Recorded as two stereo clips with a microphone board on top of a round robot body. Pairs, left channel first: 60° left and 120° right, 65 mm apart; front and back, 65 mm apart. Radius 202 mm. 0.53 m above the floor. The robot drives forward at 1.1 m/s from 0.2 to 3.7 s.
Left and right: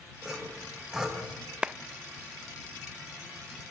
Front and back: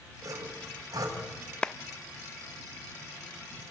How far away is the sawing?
About 4.5 m.